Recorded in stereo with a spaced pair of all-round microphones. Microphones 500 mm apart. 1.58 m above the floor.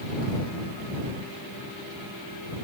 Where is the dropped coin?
No dropped coin in this recording.